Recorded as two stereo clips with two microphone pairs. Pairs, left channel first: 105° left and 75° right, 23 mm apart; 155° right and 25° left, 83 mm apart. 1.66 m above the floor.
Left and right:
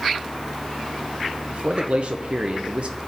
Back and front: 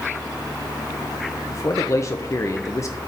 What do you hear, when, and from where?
1.5 s a man speaking: 105° right, 0.7 m